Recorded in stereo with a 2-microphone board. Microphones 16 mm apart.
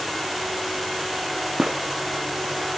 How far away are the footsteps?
About 2.5 m.